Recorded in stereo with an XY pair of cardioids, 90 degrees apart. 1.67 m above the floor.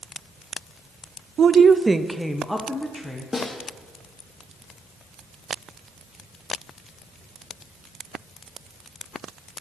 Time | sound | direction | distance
1.4 | a woman speaking | 60° right | 0.5 m
3.3 | a snare drum | 30° left | 2 m